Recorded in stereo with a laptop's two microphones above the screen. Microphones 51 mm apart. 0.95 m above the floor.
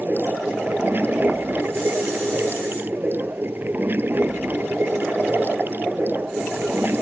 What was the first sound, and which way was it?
Running water, 45° right (ahead or behind).